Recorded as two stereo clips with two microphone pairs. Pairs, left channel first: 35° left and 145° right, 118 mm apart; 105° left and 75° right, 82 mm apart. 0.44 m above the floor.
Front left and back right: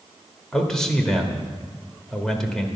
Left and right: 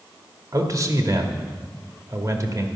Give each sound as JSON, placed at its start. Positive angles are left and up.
{"t": 0.5, "sound": "a man speaking", "azimuth_deg": -45, "distance_m": 1.1}